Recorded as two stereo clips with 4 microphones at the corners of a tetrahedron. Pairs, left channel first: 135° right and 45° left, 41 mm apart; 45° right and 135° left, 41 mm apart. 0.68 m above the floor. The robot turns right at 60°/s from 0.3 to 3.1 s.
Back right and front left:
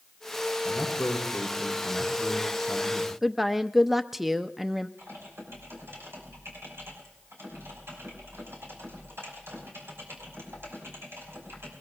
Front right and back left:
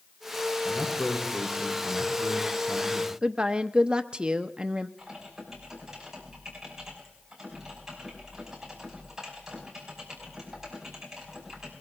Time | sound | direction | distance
0.7 | a man speaking | 135° right | 7 m
3.2 | a woman speaking | 125° left | 0.5 m
5.0 | typing on a keyboard | 55° left | 5.5 m